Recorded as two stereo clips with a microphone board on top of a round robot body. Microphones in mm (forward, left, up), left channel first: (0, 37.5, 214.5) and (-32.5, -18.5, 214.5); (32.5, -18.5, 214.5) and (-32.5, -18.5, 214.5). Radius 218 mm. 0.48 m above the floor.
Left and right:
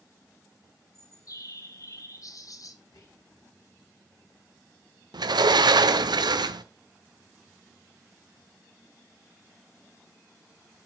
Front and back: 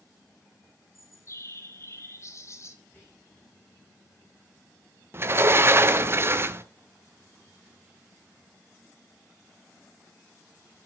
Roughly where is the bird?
Ahead left.